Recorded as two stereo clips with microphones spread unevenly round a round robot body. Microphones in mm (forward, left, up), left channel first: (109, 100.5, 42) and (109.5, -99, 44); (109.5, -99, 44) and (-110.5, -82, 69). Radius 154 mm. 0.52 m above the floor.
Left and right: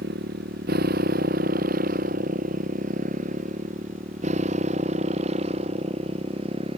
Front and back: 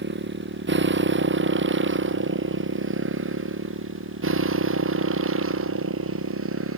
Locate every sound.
0.0 s a motorcycle: 145° right; by 6.8 s 160° right